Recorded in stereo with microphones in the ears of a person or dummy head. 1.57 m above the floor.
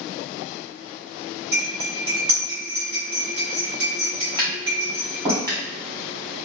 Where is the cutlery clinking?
65° right (ahead or behind), 1.6 m.